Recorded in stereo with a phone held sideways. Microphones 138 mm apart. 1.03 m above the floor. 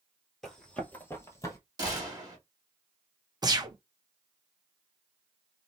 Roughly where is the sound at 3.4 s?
Right.